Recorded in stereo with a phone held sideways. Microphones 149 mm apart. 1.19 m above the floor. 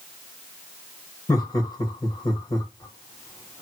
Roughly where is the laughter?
Left.